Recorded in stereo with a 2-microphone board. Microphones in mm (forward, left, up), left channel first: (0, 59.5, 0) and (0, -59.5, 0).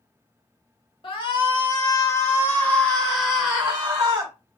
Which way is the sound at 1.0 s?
45° left (ahead or behind).